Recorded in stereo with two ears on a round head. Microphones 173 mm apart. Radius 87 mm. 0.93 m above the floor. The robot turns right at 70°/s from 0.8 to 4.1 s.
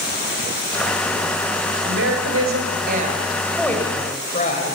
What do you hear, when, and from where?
1.8 s a woman speaking: 120° right, 5 m; by 4.8 s 35° left, 5 m